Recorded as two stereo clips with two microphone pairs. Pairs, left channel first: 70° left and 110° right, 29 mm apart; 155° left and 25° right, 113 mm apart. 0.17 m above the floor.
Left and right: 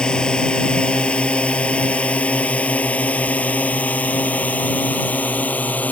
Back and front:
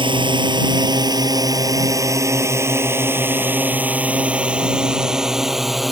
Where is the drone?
15° left; by 5.9 s 65° left.